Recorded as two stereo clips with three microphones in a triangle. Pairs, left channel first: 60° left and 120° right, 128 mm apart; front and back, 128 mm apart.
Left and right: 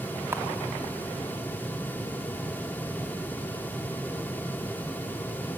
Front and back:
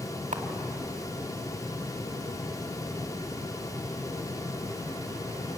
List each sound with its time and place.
0.3 s a camera shutter: 170° left, 2 m